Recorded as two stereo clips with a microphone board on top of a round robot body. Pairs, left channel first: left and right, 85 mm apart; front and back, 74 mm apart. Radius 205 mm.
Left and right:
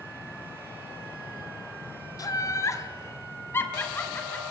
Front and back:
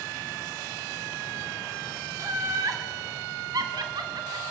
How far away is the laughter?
About 3 m.